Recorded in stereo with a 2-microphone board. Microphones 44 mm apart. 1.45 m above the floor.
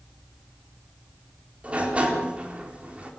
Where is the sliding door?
30° right (ahead or behind), 4 m.